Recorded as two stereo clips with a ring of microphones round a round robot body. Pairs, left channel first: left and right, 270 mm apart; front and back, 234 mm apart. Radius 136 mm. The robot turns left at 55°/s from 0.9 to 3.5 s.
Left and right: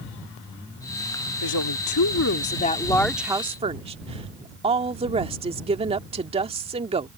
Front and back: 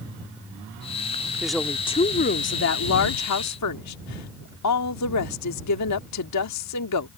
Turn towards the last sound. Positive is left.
turn(degrees=-20)